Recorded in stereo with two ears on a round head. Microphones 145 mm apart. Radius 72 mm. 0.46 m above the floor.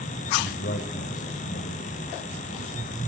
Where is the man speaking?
60° left (ahead or behind), 2 m.